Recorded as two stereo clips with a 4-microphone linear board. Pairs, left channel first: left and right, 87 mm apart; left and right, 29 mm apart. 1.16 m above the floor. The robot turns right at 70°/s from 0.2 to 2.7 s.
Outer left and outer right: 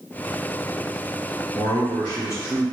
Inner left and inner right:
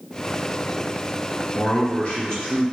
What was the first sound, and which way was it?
A man speaking, 95° left.